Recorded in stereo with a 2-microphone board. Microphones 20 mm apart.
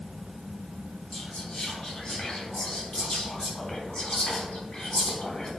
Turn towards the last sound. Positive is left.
turn(degrees=60)  # may be behind; listen again after turning